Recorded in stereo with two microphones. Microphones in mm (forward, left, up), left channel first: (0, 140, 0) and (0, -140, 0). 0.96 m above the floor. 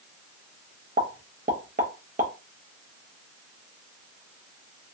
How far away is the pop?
About 0.6 m.